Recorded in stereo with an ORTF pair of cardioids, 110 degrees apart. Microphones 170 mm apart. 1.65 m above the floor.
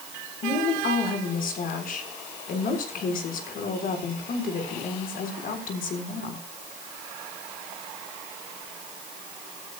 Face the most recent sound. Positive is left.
turn(degrees=55)